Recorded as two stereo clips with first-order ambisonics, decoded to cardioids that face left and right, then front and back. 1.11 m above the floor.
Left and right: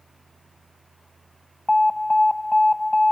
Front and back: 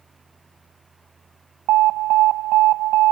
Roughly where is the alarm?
Behind.